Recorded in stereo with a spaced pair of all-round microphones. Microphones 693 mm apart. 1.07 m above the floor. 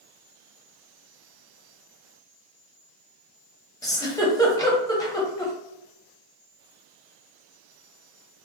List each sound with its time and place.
3.8 s a giggle: 5° left (ahead or behind), 0.6 m